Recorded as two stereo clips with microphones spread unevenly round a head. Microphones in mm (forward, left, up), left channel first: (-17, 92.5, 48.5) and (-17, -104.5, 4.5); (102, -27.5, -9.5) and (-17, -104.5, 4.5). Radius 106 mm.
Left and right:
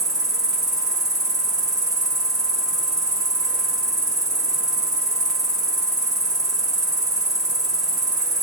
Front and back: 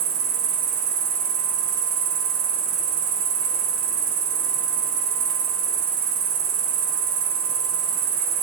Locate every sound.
0.0 s an insect: 165° right, 1.3 m